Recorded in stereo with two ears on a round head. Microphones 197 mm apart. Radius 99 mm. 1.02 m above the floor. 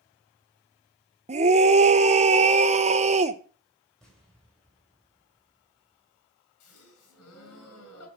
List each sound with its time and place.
1.3 s a scream: 30° right (ahead or behind), 0.9 m
4.0 s an explosion: 5° left (ahead or behind), 4.5 m
6.6 s a gasp: 75° left (ahead or behind), 4.5 m